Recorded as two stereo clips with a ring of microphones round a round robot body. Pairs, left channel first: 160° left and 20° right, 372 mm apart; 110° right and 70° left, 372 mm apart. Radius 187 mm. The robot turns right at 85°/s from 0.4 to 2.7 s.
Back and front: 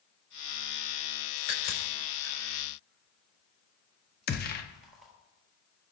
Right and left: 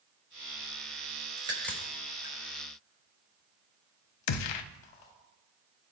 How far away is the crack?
About 4 m.